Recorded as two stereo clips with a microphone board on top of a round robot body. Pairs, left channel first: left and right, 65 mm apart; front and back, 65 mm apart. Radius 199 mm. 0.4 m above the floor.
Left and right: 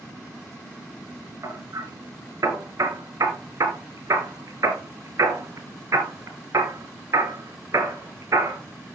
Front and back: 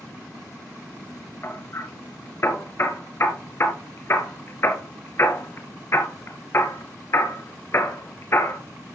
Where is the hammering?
55° right, 3 m.